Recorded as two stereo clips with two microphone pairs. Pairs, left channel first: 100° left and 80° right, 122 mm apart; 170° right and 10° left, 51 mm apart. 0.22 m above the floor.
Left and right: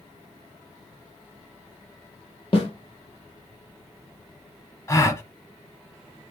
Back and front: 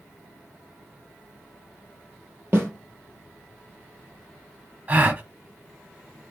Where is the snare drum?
55° left, 3 m.